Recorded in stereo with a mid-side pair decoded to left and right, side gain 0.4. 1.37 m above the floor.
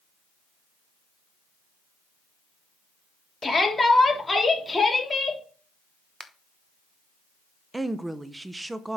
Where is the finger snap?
15° left, 1.0 m.